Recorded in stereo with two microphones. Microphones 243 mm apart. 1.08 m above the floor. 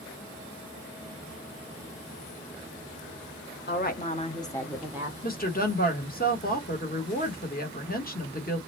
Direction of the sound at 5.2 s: 35° left (ahead or behind).